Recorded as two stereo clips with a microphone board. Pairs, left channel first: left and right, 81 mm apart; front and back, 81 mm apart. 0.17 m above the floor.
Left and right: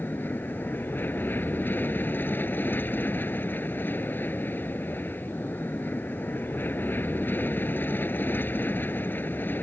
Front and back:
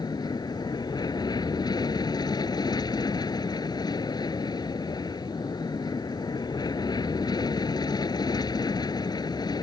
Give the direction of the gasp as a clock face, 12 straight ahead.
No gasp in this recording.